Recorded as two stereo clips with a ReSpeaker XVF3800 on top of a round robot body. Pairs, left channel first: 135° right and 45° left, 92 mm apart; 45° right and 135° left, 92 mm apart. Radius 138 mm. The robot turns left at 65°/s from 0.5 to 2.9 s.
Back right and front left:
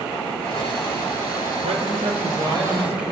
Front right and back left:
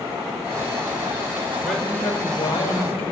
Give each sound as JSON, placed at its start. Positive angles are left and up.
{"t": 1.6, "sound": "a man speaking", "azimuth_deg": 50, "distance_m": 4.5}